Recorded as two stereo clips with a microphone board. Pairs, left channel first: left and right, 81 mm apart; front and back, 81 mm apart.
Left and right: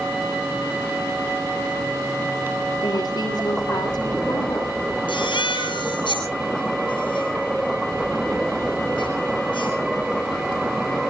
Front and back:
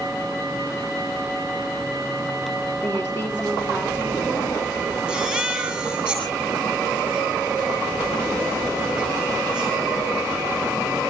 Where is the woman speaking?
60° left, 9 m.